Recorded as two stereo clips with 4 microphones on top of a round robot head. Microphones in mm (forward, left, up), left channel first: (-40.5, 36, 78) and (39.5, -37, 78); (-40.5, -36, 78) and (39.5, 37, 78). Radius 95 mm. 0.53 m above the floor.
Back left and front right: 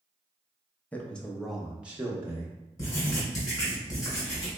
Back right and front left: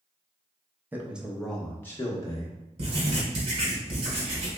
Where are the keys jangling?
I don't hear keys jangling.